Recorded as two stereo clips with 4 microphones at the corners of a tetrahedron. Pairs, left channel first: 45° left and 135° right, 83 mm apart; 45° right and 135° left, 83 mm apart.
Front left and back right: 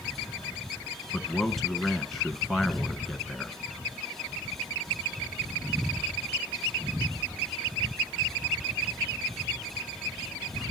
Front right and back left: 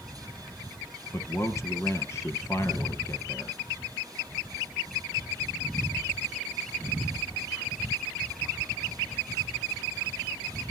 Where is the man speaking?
45° right, 1.4 m.